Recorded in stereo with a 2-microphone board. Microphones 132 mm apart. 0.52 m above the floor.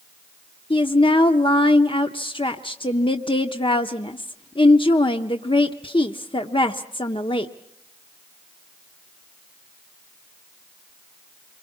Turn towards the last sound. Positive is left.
turn(degrees=40)  # may be behind; listen again after turning